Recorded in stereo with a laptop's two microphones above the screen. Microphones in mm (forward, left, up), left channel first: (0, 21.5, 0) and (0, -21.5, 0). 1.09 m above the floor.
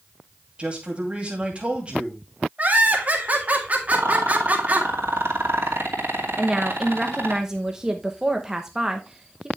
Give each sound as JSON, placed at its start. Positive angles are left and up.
{"t": 0.6, "sound": "a man speaking", "side_deg": -25, "distance_m": 2.5}
{"t": 2.6, "sound": "laughter", "side_deg": -35, "distance_m": 2.0}
{"t": 3.9, "sound": "a rattle", "side_deg": -70, "distance_m": 2.5}
{"t": 6.4, "sound": "a woman speaking", "side_deg": -15, "distance_m": 0.9}